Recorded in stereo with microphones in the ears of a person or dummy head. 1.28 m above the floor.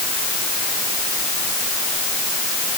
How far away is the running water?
No running water in this recording.